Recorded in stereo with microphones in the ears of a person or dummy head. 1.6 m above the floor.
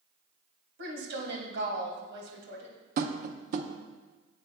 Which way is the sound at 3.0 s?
50° right (ahead or behind).